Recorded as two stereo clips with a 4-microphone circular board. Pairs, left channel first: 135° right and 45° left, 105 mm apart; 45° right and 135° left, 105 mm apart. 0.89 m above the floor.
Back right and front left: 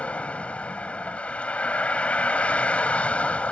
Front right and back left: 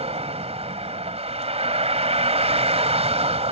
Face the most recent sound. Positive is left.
turn(degrees=145)